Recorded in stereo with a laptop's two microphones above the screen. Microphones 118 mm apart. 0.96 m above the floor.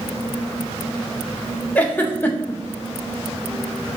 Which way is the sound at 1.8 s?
15° left (ahead or behind).